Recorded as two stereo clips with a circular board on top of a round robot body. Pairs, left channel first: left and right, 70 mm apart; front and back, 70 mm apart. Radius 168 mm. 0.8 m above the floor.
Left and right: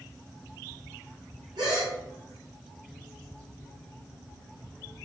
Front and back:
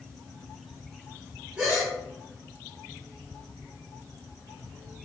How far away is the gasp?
About 0.7 m.